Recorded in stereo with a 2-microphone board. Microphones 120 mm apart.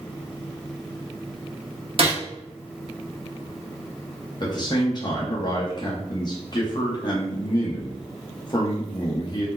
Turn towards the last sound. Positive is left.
turn(degrees=35)  # may be behind; listen again after turning